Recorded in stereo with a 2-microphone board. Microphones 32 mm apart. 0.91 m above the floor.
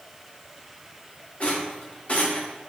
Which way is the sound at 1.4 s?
45° left (ahead or behind).